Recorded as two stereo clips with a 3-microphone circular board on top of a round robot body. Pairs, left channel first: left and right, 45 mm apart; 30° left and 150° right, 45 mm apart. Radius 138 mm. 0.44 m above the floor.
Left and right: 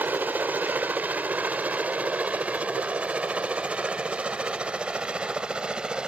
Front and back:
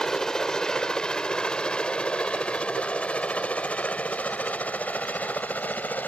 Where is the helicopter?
50° right; by 6.1 s 20° right.